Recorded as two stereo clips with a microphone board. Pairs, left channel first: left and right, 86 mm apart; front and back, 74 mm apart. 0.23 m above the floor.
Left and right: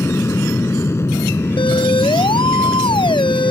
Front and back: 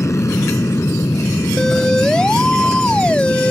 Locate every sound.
0.0 s an aircraft: 35° left
1.6 s a siren: 80° left; by 3.5 s 75° left